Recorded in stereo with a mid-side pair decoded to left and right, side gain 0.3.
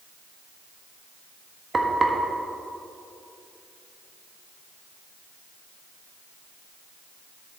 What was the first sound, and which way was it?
Frying, 45° right.